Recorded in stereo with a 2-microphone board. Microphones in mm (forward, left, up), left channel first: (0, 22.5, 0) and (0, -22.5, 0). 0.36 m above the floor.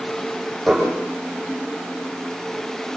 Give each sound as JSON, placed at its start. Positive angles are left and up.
{"t": 0.7, "sound": "dishes clattering", "side_deg": 0, "distance_m": 9.0}